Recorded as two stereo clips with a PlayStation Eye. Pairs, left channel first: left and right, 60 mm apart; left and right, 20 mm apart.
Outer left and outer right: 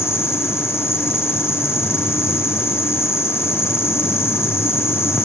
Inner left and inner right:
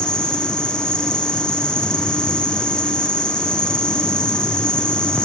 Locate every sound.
0.0 s an insect: 50° left (ahead or behind), 2.5 m